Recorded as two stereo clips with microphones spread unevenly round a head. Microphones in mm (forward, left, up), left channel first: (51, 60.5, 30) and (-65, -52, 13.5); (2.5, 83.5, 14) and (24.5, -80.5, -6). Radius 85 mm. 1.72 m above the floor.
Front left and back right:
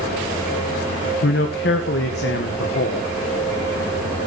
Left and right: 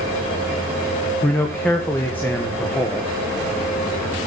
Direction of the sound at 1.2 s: 15° left.